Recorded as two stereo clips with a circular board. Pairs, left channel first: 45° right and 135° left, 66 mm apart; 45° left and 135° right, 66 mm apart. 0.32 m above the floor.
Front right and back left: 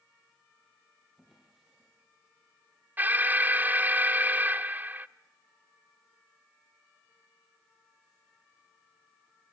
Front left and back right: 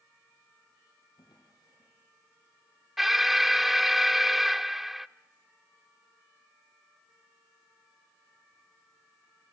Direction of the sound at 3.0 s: 145° left.